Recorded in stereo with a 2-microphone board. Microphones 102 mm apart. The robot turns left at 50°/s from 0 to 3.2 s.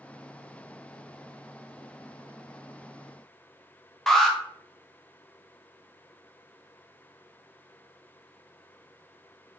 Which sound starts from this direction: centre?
An alarm, at 4.1 s.